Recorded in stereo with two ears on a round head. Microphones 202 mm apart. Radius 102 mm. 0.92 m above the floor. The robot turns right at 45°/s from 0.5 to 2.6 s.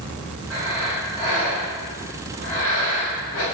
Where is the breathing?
15° right, 1.8 m; by 3.4 s 80° left, 1.8 m.